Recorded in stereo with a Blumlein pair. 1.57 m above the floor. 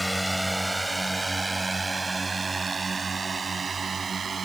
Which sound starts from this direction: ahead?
A drone, at 0.0 s.